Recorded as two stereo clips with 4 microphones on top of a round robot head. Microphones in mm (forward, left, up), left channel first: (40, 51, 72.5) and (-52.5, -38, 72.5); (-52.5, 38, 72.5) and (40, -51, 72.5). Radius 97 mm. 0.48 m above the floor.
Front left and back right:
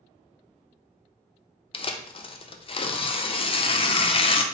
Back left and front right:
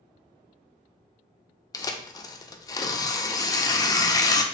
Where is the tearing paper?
80° left, 0.6 m.